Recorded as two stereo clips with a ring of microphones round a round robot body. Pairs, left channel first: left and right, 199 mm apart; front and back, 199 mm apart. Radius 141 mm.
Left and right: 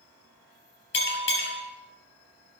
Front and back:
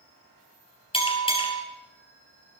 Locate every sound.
0.9 s a bell: 65° left, 4 m